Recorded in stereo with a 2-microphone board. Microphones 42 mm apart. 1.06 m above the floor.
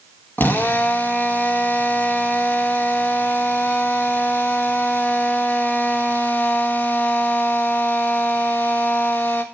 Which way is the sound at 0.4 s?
45° left (ahead or behind).